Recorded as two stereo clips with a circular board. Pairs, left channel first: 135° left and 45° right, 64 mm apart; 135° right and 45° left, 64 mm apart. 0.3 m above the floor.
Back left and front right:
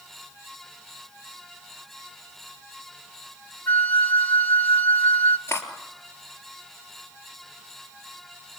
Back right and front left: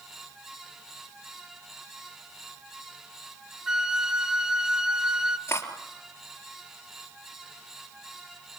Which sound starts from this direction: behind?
Cutlery clinking, at 5.5 s.